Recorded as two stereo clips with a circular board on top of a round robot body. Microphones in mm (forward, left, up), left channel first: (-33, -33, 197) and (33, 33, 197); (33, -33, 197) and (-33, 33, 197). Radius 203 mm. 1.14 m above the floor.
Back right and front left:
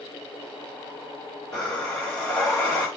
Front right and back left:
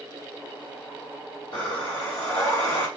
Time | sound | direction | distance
1.5 | breathing | 60° right | 0.9 m